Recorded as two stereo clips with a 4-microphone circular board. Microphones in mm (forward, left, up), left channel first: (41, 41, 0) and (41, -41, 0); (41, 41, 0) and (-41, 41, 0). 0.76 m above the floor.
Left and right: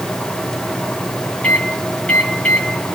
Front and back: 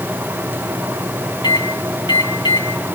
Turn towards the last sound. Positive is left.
turn(degrees=15)